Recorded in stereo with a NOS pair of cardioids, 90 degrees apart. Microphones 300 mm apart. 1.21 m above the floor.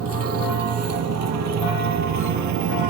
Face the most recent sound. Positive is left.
turn(degrees=-75)